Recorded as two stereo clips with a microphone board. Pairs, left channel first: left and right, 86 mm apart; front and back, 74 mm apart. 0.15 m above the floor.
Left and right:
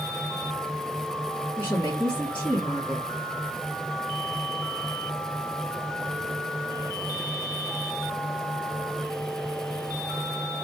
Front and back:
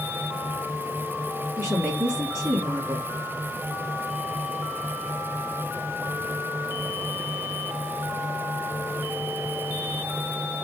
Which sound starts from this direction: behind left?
A woman speaking, at 1.6 s.